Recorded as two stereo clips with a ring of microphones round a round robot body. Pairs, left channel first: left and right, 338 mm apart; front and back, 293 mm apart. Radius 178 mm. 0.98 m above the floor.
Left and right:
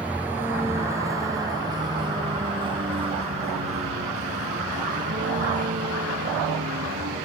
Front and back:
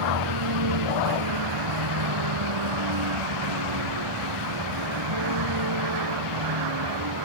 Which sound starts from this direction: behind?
A vehicle, at 0.0 s.